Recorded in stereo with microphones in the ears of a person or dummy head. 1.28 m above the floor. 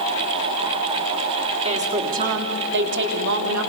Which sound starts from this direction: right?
A woman speaking, at 1.6 s.